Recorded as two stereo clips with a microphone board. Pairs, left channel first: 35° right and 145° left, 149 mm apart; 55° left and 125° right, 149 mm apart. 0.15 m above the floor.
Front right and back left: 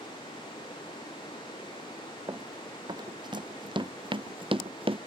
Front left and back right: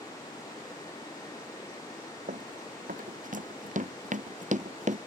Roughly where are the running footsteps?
Behind right.